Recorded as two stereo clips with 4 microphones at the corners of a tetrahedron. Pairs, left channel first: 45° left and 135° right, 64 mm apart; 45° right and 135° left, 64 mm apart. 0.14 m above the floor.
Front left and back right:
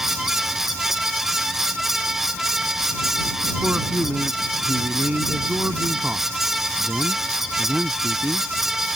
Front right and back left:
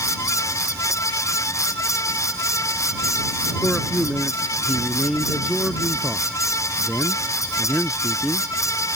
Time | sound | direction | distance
3.6 | a man speaking | 135° right | ?